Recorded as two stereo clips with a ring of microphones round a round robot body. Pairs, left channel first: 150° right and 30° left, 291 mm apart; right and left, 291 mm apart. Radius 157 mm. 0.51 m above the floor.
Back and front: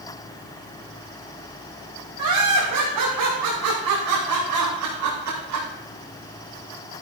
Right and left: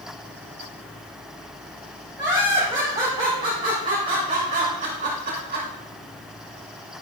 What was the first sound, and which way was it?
Laughter, 10° left.